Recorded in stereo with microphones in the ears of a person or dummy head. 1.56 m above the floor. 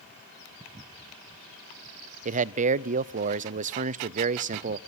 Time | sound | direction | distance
2.2 | a man speaking | 40° right (ahead or behind) | 0.5 m